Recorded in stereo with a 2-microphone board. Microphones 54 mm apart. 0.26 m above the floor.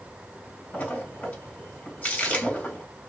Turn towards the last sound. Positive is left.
turn(degrees=25)  # may be behind; listen again after turning